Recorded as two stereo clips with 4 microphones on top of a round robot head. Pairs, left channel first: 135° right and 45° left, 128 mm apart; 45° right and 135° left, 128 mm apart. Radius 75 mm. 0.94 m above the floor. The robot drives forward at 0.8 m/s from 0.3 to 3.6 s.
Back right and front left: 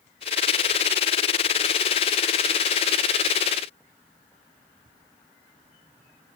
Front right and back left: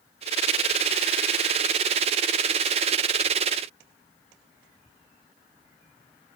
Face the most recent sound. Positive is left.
No sound to turn to.